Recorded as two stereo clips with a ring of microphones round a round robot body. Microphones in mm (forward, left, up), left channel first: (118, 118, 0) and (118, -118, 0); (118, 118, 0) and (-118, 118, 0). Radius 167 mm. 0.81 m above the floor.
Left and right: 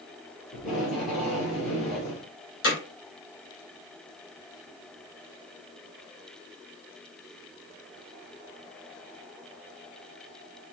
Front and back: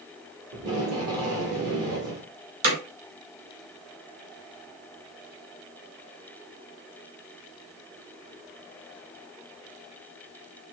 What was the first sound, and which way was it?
Tape being pulled, straight behind.